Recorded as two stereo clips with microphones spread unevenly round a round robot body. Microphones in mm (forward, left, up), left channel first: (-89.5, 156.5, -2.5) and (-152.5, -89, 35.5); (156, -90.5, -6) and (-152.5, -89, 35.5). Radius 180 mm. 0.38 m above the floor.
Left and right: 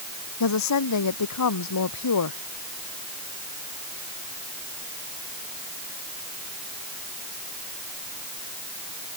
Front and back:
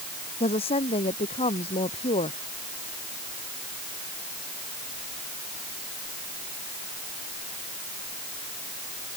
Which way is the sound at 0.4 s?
75° left.